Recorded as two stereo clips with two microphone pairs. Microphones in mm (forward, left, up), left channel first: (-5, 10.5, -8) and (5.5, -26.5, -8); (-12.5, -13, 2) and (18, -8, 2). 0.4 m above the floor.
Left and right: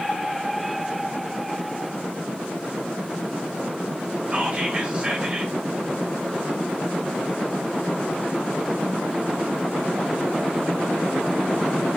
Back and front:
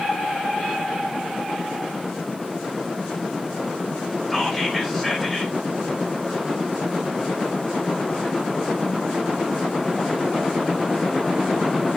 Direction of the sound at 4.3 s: 95° right.